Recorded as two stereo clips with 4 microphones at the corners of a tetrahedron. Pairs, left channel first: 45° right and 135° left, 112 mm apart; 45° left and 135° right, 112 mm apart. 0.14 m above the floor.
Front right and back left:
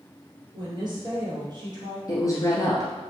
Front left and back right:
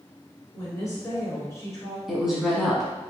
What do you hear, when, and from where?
0.5 s a woman speaking: 100° left, 1.7 m
2.1 s a woman speaking: 50° right, 1.2 m